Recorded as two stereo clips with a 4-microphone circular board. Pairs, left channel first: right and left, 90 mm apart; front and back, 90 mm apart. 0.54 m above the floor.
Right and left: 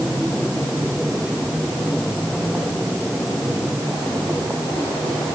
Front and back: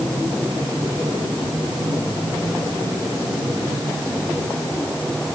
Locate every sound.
Only background noise.